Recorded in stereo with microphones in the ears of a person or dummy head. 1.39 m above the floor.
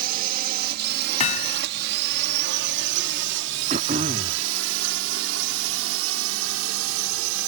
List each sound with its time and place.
0.0 s a drone: 50° right (ahead or behind); by 7.5 s 75° right (ahead or behind)
1.2 s hammering: 35° left (ahead or behind)
3.7 s throat clearing: 30° right (ahead or behind)